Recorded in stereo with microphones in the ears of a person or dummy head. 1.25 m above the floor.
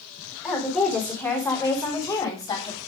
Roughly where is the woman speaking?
Centre.